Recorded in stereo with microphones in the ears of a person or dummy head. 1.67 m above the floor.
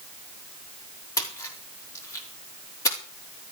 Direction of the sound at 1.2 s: 15° left (ahead or behind).